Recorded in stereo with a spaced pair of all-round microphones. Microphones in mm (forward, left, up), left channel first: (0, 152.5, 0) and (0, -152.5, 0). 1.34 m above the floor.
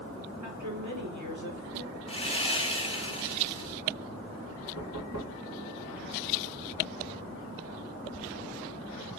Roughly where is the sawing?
Centre.